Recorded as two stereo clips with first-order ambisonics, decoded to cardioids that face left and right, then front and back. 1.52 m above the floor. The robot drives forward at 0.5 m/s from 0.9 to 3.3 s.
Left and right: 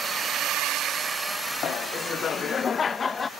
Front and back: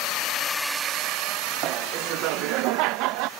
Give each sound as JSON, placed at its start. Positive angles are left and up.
{"t": 0.0, "sound": "a drone", "azimuth_deg": -25}
{"t": 1.6, "sound": "laughter", "azimuth_deg": 145}